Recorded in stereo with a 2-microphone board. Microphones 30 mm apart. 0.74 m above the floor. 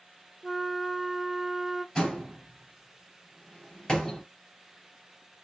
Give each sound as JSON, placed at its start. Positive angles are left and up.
{"t": 0.4, "sound": "a flute", "side_deg": -5, "distance_m": 0.5}
{"t": 1.9, "sound": "a door slam", "side_deg": 15, "distance_m": 3.0}